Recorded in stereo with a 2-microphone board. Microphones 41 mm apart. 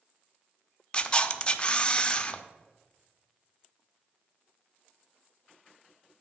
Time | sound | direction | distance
0.9 | a camera shutter | 25° left (ahead or behind) | 0.5 m